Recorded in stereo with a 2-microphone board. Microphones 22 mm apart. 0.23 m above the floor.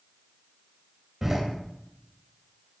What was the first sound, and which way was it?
A door slam, 15° right (ahead or behind).